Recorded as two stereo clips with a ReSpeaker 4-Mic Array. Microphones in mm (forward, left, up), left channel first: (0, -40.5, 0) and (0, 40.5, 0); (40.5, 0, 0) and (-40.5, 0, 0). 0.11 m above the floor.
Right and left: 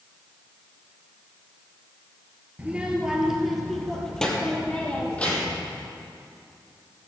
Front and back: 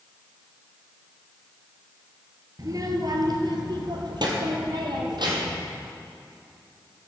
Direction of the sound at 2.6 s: 160° left.